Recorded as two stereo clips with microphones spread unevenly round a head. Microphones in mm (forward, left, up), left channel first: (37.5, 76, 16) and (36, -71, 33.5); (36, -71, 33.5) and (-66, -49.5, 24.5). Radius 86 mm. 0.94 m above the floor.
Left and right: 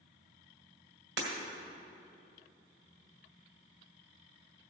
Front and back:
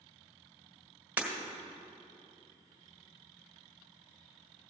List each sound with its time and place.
1.2 s breaking glass: 115° right, 1.9 m